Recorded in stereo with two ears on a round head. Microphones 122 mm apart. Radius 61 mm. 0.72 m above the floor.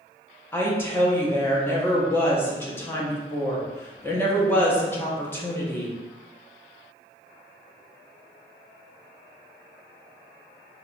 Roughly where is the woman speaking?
Centre.